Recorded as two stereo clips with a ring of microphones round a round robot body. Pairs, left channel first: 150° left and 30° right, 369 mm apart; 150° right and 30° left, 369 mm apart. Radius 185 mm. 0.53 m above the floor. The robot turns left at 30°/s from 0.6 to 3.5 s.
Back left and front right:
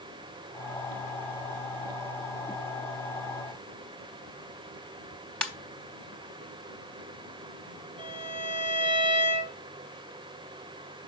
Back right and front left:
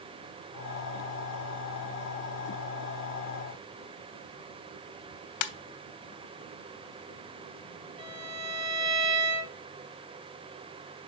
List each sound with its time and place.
5.4 s a ringtone: 125° right, 0.9 m
8.0 s a violin: 45° left, 2.5 m